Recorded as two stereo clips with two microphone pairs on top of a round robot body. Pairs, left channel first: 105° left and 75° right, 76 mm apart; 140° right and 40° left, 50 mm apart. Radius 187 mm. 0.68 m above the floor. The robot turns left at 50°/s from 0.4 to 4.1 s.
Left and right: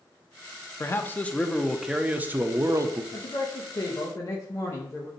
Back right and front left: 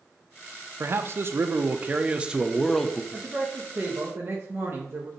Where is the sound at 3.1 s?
115° left, 1.1 m; by 5.1 s 65° left, 1.1 m.